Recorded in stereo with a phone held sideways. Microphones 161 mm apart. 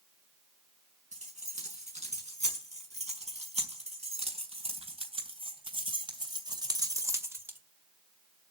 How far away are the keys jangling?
About 6 m.